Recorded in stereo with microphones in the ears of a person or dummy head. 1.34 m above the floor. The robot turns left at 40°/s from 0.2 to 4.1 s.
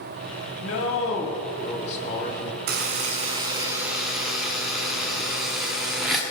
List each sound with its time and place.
0.6 s a man speaking: 90° left, 2.5 m; by 2.6 s 10° left, 2.5 m
2.7 s a buzzer: 125° right, 1.6 m; by 6.2 s straight behind, 1.6 m